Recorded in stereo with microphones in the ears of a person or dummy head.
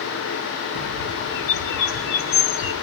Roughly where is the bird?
Left.